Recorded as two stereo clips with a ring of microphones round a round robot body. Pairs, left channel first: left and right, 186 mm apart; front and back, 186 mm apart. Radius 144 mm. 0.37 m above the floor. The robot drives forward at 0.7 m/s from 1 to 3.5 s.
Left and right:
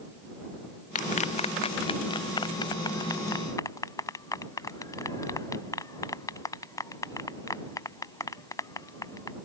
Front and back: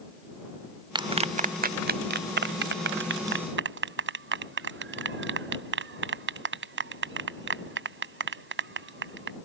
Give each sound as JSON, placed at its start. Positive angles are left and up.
{"t": 0.9, "sound": "a clap", "azimuth_deg": 120}